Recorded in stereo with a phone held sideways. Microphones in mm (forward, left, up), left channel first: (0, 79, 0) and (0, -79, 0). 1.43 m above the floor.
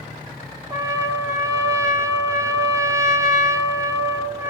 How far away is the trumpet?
About 1.2 m.